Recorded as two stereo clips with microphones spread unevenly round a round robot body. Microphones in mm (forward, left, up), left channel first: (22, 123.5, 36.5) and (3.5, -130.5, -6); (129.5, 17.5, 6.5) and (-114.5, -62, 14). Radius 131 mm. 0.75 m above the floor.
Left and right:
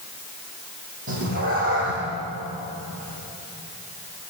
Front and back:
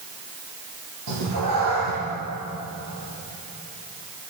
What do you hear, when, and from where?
1.1 s a cat meowing: 150° right, 9 m